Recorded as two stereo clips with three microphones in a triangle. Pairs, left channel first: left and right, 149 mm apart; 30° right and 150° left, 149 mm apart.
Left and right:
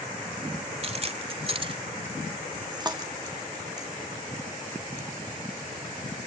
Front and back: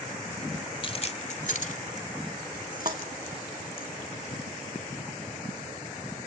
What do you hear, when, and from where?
0.8 s keys jangling: 70° right, 0.8 m; by 3.9 s 25° right, 2.5 m
2.9 s a thud: 165° right, 2 m